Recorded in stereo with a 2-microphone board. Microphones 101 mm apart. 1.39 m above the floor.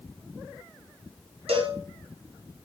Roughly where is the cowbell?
Right.